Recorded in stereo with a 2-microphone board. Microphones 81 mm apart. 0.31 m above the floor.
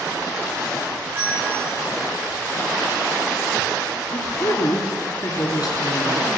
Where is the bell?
35° right (ahead or behind), 10 m.